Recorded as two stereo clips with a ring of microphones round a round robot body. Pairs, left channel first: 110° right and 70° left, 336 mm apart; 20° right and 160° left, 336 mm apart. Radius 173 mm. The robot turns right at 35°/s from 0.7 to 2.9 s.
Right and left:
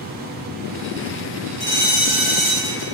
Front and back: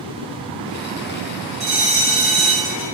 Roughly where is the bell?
Behind right.